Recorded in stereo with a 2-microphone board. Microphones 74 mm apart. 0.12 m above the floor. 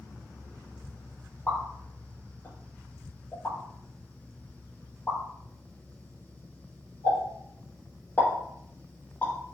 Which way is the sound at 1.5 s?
25° left (ahead or behind).